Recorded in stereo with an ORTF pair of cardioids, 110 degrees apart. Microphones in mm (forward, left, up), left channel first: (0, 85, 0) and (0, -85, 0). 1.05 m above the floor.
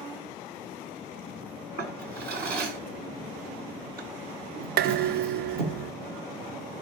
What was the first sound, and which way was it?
A drawer, 60° right.